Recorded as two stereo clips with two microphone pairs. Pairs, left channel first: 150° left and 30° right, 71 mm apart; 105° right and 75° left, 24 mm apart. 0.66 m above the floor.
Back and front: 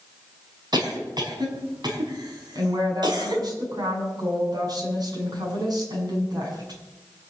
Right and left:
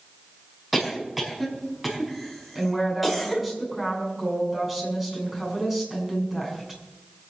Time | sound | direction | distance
0.7 | a cough | 10° right | 5 m
2.5 | a woman speaking | 5° right | 6.5 m